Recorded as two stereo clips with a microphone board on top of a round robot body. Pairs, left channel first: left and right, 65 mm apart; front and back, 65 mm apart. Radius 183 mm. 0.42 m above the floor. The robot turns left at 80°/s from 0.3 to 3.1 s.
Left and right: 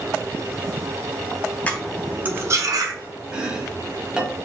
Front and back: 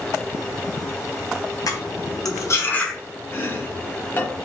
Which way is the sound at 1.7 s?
25° left.